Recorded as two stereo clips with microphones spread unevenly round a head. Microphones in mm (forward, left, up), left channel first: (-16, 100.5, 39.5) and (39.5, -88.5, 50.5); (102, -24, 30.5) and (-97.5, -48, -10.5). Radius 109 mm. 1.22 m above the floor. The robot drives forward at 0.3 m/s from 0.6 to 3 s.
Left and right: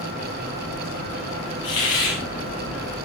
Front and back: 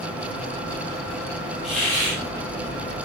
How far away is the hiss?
About 8 m.